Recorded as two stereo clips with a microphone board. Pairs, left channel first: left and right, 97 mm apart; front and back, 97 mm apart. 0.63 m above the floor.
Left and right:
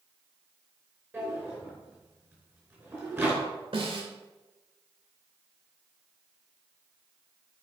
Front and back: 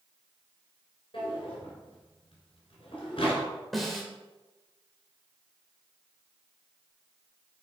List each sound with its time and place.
1.1 s a drawer: 25° right, 4 m
3.7 s a snare drum: 90° right, 1.7 m